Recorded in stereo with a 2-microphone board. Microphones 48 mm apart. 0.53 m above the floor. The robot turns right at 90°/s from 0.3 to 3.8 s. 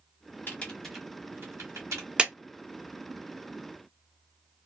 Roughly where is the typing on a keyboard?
Left.